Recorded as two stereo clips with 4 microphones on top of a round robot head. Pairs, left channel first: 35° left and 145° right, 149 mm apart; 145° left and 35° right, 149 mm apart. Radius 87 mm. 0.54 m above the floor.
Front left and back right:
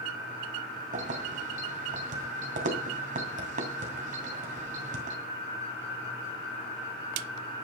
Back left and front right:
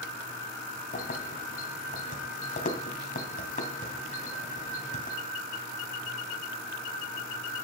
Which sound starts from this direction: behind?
Keys jangling, at 0.9 s.